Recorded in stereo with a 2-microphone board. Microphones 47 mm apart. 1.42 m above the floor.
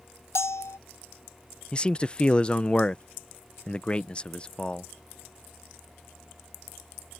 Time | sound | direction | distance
0.3 | a bell | 70° left (ahead or behind) | ?
1.7 | a man speaking | 20° left (ahead or behind) | ?